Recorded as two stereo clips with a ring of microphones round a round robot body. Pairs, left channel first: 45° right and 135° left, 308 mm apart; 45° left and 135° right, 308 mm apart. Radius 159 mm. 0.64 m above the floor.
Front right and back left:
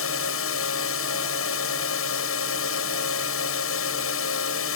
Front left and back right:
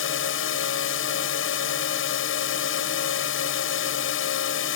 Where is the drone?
Straight ahead.